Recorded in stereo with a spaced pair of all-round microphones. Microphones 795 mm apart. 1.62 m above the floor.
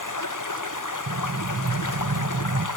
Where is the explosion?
20° right (ahead or behind), 0.5 m.